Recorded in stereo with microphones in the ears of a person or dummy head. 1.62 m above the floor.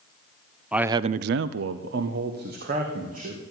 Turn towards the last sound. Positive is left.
turn(degrees=-45)  # may be behind; listen again after turning